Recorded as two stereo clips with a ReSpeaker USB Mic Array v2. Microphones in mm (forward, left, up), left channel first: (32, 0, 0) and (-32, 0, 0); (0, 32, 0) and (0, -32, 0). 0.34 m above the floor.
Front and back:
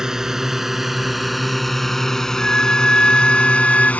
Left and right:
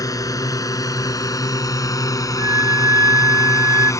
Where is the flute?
75° right.